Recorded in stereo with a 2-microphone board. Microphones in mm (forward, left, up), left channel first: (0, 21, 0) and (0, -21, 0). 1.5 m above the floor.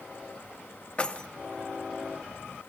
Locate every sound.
1.0 s keys jangling: 25° left (ahead or behind), 0.5 m